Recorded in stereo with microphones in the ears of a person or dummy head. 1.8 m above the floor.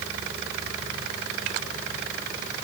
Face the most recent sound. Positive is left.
No sound to turn to.